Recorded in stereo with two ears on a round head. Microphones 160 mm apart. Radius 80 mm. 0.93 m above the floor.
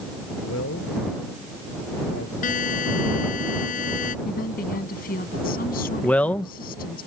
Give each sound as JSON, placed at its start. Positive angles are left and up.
{"t": 0.4, "sound": "a man speaking", "side_deg": 85}
{"t": 2.4, "sound": "a buzzer", "side_deg": 50}
{"t": 4.2, "sound": "a woman speaking", "side_deg": 60}
{"t": 6.0, "sound": "a man speaking", "side_deg": 10}